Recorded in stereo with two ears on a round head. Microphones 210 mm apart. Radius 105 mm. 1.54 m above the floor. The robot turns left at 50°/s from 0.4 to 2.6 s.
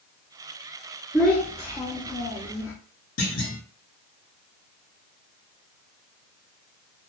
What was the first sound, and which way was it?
A child speaking, centre (ahead or behind).